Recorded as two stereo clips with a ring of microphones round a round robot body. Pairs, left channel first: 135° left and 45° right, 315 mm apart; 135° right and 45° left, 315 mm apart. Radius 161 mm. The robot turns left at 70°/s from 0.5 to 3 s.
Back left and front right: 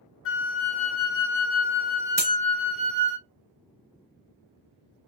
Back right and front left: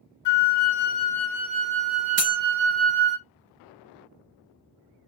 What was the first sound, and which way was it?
A flute, 175° right.